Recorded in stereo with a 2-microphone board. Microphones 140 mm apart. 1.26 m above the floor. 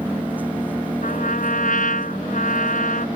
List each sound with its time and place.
0.0 s an engine running: 10° right (ahead or behind)
1.0 s a trumpet: 70° left (ahead or behind)